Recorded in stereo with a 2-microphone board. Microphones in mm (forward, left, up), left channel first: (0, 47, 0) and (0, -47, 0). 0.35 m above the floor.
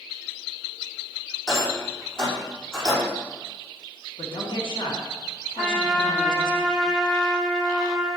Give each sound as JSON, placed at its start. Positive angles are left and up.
{"t": 1.5, "sound": "a rattle", "side_deg": 5, "distance_m": 4.0}
{"t": 4.2, "sound": "a woman speaking", "side_deg": 70, "distance_m": 3.5}
{"t": 5.6, "sound": "a trumpet", "side_deg": 5, "distance_m": 2.0}